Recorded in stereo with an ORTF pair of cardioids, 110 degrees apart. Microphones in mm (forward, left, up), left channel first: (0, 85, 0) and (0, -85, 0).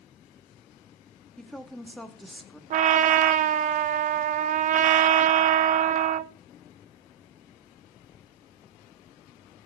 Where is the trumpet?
50° right, 0.9 m.